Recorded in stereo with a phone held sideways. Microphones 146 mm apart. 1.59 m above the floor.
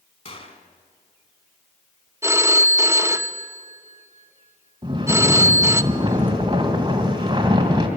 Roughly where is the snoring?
Right.